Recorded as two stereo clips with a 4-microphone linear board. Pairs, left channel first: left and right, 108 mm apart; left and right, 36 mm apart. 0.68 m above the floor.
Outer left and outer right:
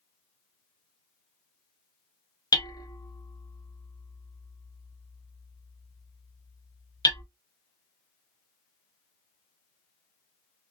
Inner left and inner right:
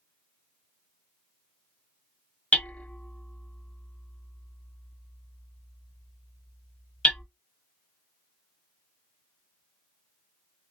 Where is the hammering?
35° left (ahead or behind), 0.5 m.